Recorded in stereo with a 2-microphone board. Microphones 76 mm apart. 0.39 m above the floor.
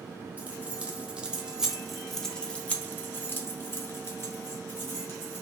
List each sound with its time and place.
0.4 s keys jangling: 20° right (ahead or behind), 1.3 m; by 5.4 s 35° left (ahead or behind), 1.8 m